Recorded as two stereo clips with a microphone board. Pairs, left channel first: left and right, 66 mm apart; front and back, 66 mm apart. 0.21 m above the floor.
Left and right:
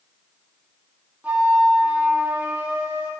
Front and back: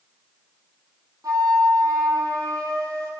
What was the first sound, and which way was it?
A flute, 155° right.